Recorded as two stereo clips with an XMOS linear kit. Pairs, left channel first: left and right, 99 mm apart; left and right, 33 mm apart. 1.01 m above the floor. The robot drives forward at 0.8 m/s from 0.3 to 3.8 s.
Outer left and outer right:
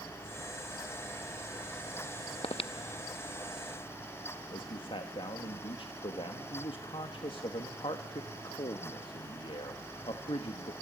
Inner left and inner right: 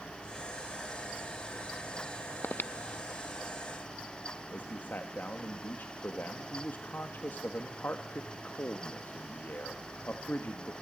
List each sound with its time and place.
2.4 s breathing: 70° left (ahead or behind), 0.5 m; by 3.6 s 25° left (ahead or behind), 1.1 m
4.5 s a man speaking: 60° left (ahead or behind), 1.5 m